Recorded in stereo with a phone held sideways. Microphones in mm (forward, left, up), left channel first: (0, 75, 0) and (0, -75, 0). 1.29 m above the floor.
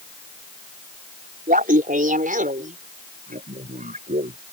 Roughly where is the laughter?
Right.